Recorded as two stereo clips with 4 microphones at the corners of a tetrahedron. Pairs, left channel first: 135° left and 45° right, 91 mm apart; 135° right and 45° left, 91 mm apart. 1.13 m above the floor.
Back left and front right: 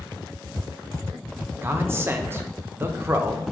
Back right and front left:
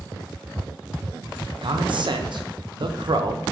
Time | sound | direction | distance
1.6 | a man speaking | 20° left | 0.5 m